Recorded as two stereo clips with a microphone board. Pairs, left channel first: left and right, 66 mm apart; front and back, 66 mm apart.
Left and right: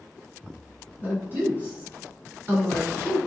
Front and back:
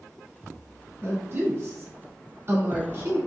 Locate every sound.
1.0 s a woman speaking: 145° right, 1.5 m